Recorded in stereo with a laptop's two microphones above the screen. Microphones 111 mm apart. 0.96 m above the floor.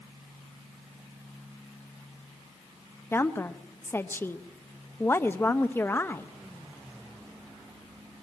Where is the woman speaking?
20° left (ahead or behind), 0.6 m.